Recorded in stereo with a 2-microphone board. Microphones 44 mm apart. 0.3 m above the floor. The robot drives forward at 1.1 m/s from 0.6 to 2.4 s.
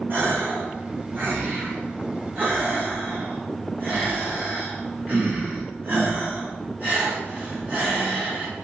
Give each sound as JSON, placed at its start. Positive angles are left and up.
{"t": 0.1, "sound": "a gasp", "side_deg": -60, "distance_m": 3.5}